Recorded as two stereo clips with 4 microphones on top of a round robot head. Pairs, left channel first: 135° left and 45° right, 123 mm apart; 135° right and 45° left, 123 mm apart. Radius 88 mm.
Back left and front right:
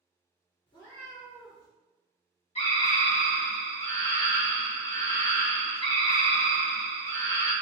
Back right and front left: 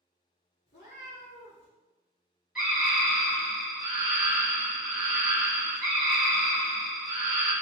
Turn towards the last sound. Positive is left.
turn(degrees=125)